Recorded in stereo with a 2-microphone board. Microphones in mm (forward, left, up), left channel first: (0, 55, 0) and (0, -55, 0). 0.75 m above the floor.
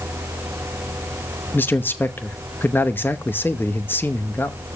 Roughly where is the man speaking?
Centre.